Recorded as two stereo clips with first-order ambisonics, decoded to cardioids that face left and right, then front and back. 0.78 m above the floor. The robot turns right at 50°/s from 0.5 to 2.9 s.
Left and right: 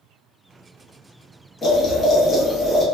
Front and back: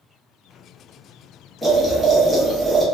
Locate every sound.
1.6 s boiling: 90° left, 0.7 m; by 2.9 s 150° left, 0.7 m